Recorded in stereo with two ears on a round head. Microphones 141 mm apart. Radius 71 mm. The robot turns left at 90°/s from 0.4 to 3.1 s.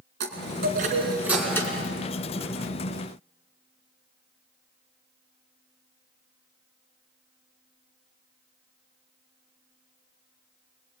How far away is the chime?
About 4 m.